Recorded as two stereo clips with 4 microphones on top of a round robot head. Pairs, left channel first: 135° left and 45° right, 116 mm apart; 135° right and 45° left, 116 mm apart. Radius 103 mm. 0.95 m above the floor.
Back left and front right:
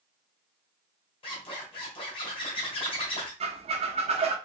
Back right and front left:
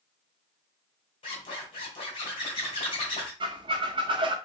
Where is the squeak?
5° right, 0.6 m.